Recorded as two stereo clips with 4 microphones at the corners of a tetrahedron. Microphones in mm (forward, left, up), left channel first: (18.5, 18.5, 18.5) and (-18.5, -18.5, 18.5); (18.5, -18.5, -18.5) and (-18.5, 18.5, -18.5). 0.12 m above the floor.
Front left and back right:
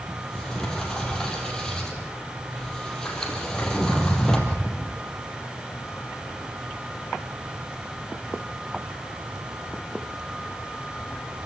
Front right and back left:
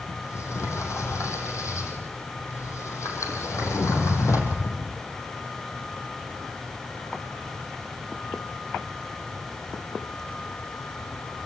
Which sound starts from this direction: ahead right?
A sliding door, at 0.1 s.